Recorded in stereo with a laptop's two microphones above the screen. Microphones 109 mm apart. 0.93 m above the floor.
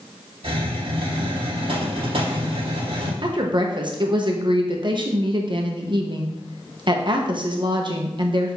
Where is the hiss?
60° right (ahead or behind), 3.5 m.